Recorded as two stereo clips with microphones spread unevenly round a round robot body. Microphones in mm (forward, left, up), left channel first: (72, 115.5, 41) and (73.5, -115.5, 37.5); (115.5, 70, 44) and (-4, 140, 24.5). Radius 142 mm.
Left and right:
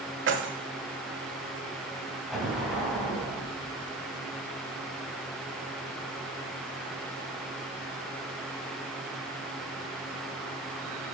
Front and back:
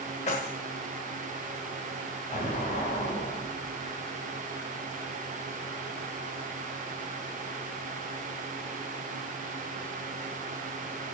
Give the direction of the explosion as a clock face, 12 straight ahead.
12 o'clock.